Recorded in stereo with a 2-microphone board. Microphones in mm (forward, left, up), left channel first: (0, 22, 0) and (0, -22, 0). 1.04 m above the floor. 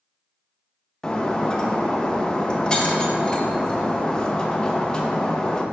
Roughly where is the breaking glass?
Centre.